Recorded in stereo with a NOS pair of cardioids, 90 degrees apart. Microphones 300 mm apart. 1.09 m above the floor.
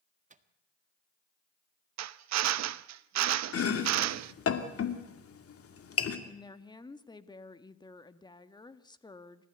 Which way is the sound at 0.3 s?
25° right.